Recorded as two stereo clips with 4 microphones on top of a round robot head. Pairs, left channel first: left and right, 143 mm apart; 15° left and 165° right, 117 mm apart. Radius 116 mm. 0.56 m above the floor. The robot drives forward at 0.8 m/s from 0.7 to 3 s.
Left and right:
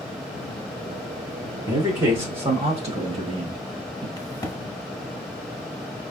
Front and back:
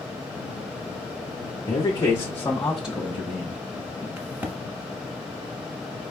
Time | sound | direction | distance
1.7 | a man speaking | 30° right | 1.5 m
4.2 | a crack | 130° left | 1.3 m